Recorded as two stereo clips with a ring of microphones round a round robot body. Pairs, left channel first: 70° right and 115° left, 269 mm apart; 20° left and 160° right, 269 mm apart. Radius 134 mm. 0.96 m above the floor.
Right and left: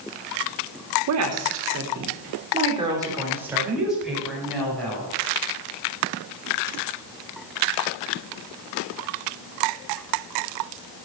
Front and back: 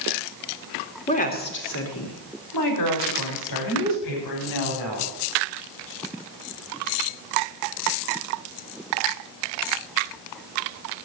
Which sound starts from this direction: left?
A woman speaking, at 1.1 s.